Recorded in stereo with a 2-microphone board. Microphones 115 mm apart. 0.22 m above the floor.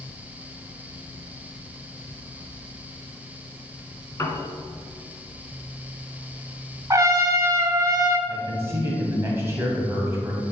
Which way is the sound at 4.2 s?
25° left (ahead or behind).